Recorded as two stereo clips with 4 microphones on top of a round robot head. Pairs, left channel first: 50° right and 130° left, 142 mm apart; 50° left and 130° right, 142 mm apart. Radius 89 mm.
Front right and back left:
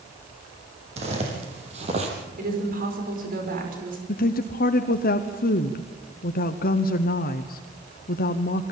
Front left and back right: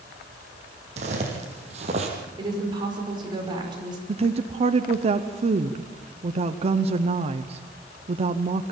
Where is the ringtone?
I don't hear a ringtone.